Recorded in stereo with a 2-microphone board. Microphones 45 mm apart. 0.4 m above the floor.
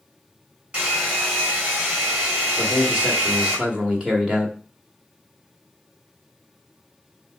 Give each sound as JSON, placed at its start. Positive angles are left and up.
{"t": 0.7, "sound": "a hair dryer", "side_deg": -30, "distance_m": 3.5}
{"t": 2.6, "sound": "a man speaking", "side_deg": -20, "distance_m": 1.4}